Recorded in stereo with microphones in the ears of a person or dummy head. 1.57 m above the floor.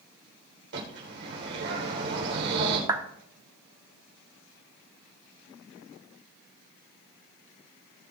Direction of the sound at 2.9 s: 20° right (ahead or behind).